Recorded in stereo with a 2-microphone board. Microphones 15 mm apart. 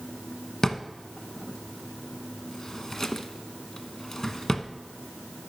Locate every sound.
0.6 s a drawer: 30° left (ahead or behind), 0.6 m